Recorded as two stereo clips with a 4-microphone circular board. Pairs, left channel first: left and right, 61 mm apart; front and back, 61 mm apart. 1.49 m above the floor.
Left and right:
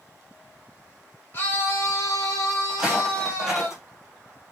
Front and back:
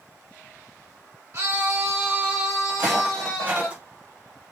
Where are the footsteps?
160° right, 1.9 m; by 4.5 s 165° left, 1.5 m.